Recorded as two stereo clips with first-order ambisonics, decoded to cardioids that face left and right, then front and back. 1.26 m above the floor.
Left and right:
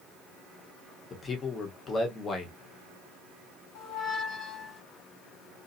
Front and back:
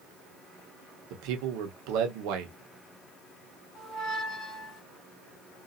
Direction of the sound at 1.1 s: 160° left.